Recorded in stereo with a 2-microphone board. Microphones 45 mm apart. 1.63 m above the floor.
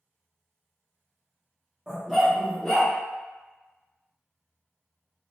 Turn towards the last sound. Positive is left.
turn(degrees=20)  # may be behind; listen again after turning